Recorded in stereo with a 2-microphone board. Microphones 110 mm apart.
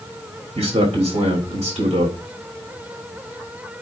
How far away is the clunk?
No clunk in this recording.